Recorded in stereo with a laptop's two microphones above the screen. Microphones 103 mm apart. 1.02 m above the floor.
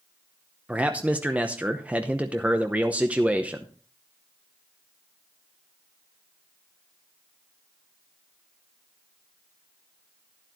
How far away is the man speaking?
About 0.8 m.